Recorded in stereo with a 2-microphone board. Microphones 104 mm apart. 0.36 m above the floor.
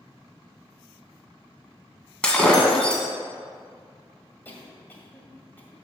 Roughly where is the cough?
Centre.